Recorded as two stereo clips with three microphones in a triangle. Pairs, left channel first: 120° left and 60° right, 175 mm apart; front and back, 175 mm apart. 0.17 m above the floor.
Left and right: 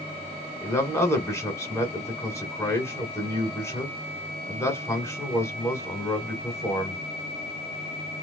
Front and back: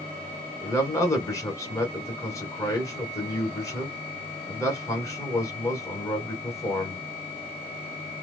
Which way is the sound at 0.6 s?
55° left.